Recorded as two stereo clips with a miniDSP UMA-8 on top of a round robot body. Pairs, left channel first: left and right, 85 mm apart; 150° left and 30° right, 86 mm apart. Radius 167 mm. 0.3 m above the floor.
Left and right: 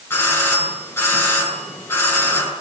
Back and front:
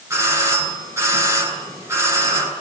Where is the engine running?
No engine running in this recording.